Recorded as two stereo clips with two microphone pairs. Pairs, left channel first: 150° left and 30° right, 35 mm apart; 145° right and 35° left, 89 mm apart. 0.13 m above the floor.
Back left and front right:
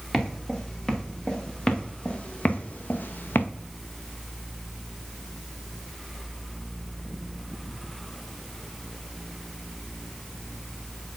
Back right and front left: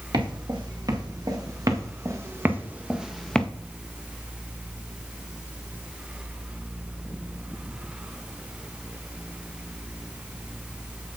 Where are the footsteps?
75° left, 3.5 m; by 3.5 s 135° left, 1.1 m.